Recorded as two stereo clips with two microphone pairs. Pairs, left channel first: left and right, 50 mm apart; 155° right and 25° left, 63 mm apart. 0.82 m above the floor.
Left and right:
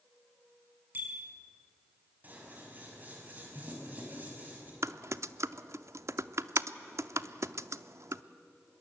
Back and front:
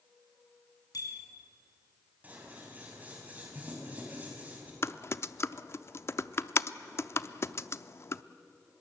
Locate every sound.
0.9 s a bicycle bell: 140° right, 5 m
2.2 s scissors: 35° right, 5.5 m
4.8 s typing on a keyboard: 105° right, 0.6 m